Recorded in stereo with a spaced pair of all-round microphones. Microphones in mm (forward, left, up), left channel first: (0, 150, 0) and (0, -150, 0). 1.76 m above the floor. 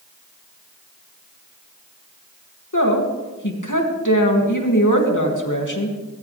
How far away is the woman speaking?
About 3 m.